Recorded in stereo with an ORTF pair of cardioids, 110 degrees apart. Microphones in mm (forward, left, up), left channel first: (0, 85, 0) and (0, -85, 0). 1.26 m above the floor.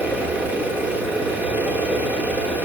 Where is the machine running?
10° right, 3 m.